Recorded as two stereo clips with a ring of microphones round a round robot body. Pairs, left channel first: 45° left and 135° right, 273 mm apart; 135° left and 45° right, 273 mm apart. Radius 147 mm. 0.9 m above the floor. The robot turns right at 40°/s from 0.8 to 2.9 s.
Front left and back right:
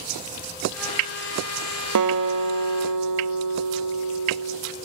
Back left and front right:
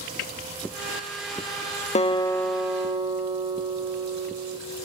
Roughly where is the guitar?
Behind.